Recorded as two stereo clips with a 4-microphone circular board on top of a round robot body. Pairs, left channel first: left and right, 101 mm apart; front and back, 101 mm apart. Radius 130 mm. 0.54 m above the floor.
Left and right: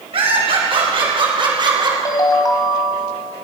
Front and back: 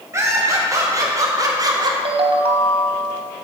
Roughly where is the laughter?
Behind right.